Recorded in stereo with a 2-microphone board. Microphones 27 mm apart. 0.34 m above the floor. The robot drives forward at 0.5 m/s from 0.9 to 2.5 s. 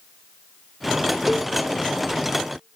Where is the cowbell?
5° right (ahead or behind), 1.0 m.